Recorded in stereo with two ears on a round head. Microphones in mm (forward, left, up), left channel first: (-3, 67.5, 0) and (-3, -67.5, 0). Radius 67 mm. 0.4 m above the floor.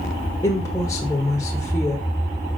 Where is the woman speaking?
20° left (ahead or behind), 0.9 m.